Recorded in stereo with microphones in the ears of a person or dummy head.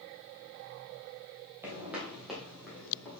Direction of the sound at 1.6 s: 15° right (ahead or behind).